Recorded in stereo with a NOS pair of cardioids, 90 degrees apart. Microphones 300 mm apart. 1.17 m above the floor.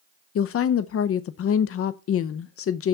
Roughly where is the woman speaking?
Ahead left.